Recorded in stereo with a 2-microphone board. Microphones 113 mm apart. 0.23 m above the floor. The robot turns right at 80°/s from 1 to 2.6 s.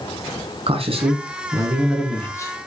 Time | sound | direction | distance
0.7 | a man speaking | 80° right | 2.5 m